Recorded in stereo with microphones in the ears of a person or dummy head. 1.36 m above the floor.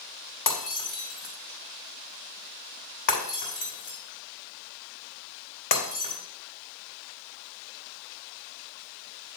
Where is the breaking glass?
50° left (ahead or behind), 3.5 m.